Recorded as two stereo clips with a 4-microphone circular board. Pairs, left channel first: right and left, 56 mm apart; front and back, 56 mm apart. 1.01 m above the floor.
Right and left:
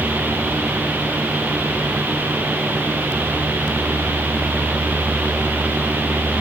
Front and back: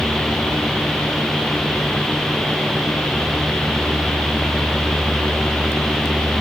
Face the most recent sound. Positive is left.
No sound to turn to.